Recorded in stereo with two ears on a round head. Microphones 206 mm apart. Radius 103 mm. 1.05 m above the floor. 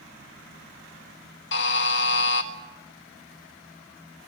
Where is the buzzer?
55° left (ahead or behind), 1.5 m.